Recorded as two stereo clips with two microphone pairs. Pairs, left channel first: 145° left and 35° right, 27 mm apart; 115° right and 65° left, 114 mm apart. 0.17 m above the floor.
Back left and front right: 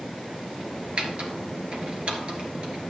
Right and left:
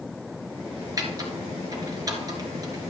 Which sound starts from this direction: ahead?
Typing on a keyboard, at 1.0 s.